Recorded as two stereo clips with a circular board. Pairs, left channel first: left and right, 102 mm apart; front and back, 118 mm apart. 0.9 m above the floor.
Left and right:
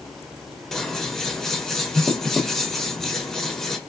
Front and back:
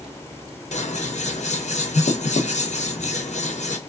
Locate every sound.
0.7 s scissors: 5° left, 0.7 m